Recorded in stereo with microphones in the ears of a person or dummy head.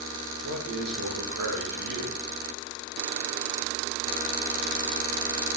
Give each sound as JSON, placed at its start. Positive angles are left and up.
{"t": 0.4, "sound": "a man speaking", "side_deg": -70, "distance_m": 2.0}